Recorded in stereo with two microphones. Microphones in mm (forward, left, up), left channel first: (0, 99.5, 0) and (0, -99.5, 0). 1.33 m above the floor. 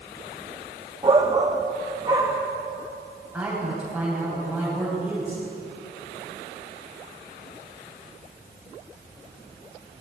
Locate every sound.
1.0 s a shout: 25° right (ahead or behind), 0.9 m
3.3 s a man speaking: 5° right (ahead or behind), 10 m